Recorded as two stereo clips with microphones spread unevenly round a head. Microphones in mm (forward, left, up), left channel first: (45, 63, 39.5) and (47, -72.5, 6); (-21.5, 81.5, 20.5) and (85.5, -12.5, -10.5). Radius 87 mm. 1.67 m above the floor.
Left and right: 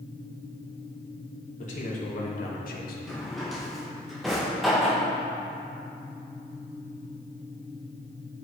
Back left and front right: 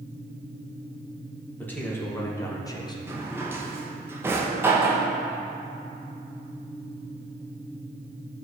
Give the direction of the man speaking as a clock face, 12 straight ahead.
10 o'clock.